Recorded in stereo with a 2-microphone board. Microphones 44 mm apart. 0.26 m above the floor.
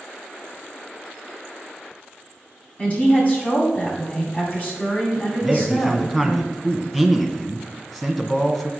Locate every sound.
2.8 s a woman speaking: 35° left (ahead or behind), 2 m
5.4 s a man speaking: 10° left (ahead or behind), 1.7 m